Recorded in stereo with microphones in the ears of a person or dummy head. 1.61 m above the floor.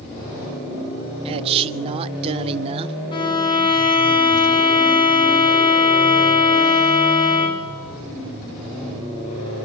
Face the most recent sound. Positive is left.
turn(degrees=25)  # may be behind; listen again after turning